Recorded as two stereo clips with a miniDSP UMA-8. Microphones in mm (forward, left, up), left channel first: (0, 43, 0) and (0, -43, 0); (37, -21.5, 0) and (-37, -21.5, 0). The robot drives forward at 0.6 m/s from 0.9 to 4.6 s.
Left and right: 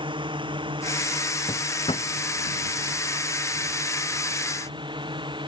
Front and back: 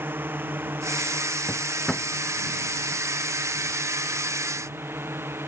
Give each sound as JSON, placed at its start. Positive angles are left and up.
{"t": 0.0, "sound": "a drone", "azimuth_deg": -115}
{"t": 1.5, "sound": "a drawer", "azimuth_deg": 85}